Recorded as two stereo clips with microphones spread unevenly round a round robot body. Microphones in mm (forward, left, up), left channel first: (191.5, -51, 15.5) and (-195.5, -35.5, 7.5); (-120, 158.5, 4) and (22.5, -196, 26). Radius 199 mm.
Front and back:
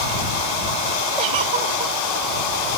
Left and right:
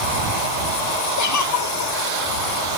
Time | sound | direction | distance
1.2 | a giggle | 155° left | ?